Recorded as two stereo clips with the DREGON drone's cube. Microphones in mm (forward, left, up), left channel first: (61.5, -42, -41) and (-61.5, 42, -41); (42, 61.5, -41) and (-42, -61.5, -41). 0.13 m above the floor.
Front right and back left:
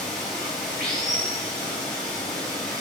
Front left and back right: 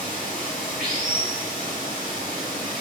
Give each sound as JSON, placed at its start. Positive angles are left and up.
{"t": 0.0, "sound": "running water", "azimuth_deg": -120, "distance_m": 1.5}